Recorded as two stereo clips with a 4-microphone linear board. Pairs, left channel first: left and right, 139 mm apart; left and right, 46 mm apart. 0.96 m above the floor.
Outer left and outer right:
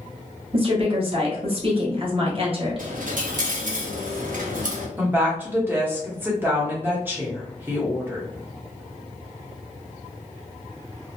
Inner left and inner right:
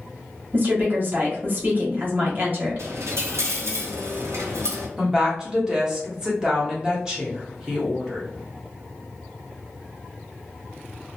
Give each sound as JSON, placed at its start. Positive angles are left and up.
{"t": 0.5, "sound": "a woman speaking", "side_deg": -40, "distance_m": 1.0}
{"t": 2.8, "sound": "a dropped coin", "side_deg": -75, "distance_m": 0.7}
{"t": 5.0, "sound": "a woman speaking", "side_deg": -15, "distance_m": 1.2}